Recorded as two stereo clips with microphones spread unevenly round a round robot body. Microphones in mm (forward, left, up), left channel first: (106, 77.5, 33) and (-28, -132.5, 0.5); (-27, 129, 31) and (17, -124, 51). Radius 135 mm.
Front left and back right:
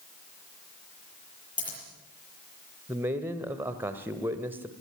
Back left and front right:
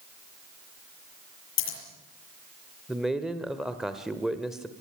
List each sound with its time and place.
1.6 s scissors: 140° left, 7.5 m
2.9 s a man speaking: 175° right, 1.5 m